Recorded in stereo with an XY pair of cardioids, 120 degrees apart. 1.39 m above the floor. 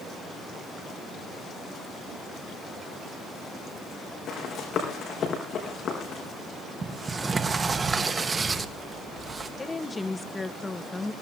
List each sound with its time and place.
4.3 s running footsteps: 45° left, 5 m
6.8 s a sliding door: 25° right, 1.6 m
9.6 s a woman speaking: 20° left, 1.5 m